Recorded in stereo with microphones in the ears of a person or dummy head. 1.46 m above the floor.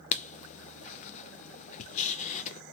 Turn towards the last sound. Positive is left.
turn(degrees=40)  # may be behind; listen again after turning